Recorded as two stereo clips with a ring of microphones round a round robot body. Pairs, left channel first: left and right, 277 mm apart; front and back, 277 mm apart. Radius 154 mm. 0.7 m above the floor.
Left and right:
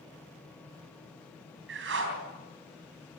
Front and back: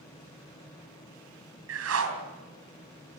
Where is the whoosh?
145° right, 3.5 m.